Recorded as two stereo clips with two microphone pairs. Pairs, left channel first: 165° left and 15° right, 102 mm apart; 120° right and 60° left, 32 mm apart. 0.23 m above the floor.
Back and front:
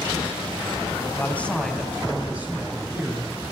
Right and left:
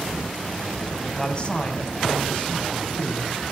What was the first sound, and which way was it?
A man speaking, 155° right.